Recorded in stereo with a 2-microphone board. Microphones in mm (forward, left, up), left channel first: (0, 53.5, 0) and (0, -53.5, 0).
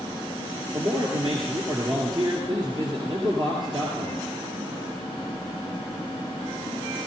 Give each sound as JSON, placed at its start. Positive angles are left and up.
{"t": 0.7, "sound": "a man speaking", "side_deg": -45, "distance_m": 2.5}